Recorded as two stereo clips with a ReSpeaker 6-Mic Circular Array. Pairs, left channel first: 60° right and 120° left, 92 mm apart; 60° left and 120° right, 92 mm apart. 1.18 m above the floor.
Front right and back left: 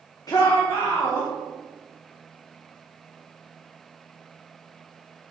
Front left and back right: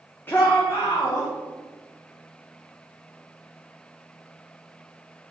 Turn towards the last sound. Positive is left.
turn(degrees=5)